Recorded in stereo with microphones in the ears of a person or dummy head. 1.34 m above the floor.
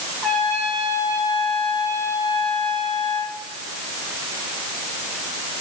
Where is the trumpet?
5° left (ahead or behind), 4.5 m.